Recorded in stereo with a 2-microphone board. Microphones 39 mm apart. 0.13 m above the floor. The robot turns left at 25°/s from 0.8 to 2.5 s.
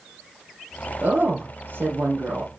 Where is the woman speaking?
70° right, 2.5 m; by 2.5 s 105° right, 2.5 m.